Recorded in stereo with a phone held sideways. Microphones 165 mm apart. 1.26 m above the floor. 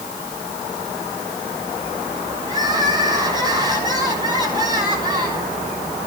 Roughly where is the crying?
Right.